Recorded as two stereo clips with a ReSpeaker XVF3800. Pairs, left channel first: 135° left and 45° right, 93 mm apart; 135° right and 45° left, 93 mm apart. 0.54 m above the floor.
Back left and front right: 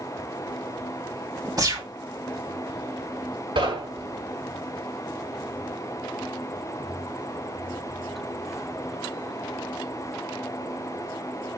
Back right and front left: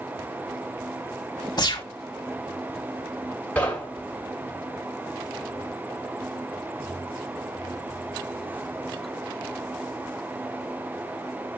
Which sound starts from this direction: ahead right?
Knocking, at 3.5 s.